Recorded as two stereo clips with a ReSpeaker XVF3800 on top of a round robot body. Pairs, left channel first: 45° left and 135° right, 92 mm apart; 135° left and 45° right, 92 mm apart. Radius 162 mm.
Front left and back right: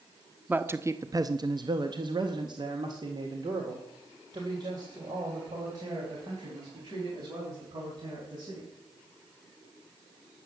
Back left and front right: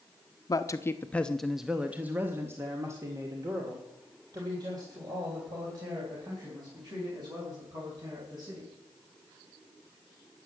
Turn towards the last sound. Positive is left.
turn(degrees=-85)